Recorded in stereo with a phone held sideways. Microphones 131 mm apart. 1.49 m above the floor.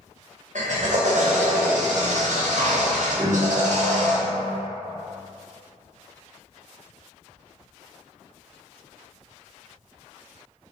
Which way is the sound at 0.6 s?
70° right (ahead or behind).